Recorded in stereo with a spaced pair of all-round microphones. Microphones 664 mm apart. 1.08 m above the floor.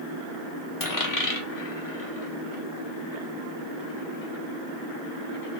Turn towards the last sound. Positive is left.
turn(degrees=30)  # may be behind; listen again after turning